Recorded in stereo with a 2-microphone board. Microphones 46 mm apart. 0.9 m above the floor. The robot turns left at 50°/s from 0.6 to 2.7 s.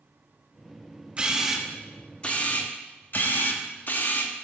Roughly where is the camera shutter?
Behind right.